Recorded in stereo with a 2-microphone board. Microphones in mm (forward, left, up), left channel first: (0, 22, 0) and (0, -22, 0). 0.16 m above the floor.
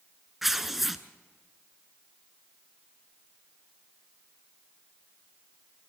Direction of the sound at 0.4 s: 5° right (ahead or behind).